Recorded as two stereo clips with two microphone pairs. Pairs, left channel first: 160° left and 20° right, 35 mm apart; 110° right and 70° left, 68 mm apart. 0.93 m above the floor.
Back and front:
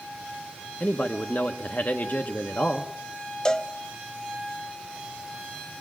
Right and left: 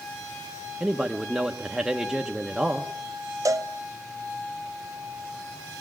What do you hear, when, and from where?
0.8 s a man speaking: 150° left, 0.9 m
3.5 s a cowbell: 90° left, 0.6 m